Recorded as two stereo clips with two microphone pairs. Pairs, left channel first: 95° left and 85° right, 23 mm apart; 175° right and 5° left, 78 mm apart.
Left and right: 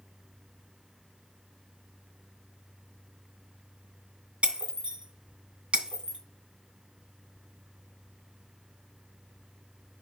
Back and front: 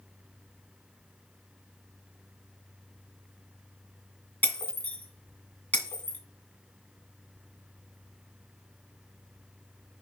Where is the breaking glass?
110° right, 2.0 m.